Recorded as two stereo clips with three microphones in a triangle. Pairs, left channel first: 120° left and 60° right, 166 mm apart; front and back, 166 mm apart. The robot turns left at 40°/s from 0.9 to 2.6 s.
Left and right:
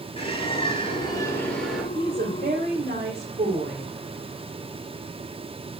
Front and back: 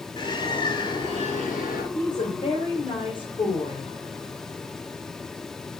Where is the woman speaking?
30° right, 3 m; by 3.9 s 55° right, 3 m.